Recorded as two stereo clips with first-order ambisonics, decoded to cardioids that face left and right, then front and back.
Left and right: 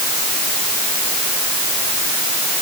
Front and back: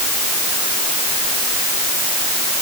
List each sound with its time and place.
Only background noise.